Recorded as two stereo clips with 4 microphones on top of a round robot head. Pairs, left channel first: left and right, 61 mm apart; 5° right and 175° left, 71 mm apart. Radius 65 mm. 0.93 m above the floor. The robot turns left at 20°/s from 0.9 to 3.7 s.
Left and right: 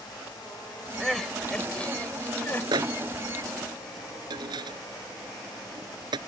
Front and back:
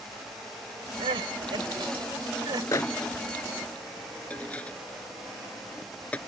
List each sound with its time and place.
1.0 s crying: straight behind; by 2.6 s 145° left
2.7 s a microwave: 60° right; by 6.2 s 80° right